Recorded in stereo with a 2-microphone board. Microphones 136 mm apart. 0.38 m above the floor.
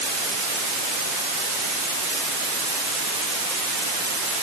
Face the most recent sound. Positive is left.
No sound to turn to.